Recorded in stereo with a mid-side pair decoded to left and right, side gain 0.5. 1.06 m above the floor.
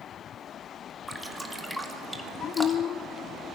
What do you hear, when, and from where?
1.1 s dripping: 5° left, 2.5 m